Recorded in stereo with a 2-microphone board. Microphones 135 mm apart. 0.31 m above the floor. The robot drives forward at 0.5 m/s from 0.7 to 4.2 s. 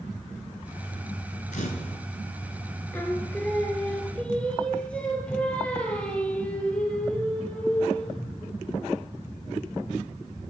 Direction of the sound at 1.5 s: 75° left (ahead or behind).